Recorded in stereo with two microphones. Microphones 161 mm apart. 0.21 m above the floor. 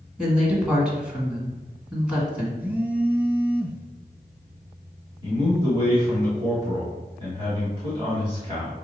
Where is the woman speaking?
5° right (ahead or behind), 1.6 m.